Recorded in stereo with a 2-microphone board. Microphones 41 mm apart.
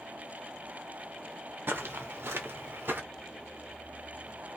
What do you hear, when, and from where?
1.7 s footsteps: 65° right (ahead or behind), 0.8 m; by 3.0 s 60° right (ahead or behind), 0.8 m